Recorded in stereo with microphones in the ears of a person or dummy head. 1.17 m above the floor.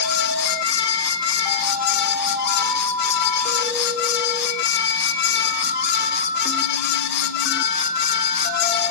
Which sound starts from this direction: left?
A fan, at 0.0 s.